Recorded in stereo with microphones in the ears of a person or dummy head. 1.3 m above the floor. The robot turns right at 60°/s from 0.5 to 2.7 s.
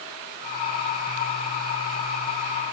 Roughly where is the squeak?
I don't hear a squeak.